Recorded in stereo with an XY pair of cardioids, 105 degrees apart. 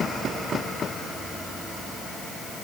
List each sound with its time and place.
Only background noise.